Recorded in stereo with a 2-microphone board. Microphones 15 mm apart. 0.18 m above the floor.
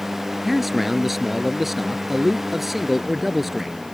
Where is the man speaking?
10° right (ahead or behind).